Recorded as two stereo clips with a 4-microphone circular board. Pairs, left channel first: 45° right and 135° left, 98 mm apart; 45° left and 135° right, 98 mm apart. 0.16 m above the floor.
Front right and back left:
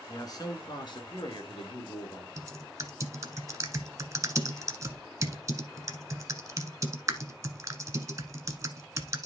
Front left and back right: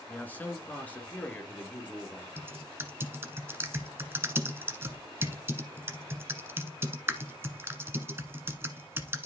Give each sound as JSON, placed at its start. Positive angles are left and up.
{"t": 0.1, "sound": "a man speaking", "azimuth_deg": -20, "distance_m": 1.8}
{"t": 2.4, "sound": "typing on a keyboard", "azimuth_deg": 170, "distance_m": 1.1}